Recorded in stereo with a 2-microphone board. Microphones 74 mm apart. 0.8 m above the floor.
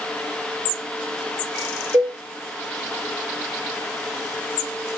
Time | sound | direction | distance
1.9 | a cowbell | 70° right (ahead or behind) | 7.5 m